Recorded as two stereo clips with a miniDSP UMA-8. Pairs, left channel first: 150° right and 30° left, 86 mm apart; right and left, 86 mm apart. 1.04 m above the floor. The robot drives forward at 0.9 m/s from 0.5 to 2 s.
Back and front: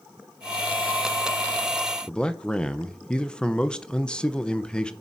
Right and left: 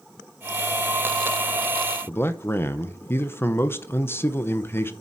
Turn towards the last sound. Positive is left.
turn(degrees=-85)